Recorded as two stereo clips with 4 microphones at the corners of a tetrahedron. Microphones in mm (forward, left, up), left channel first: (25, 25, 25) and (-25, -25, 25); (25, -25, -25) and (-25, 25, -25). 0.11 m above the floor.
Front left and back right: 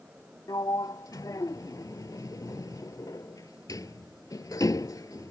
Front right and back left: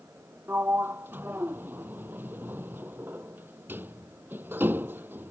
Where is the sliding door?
75° left.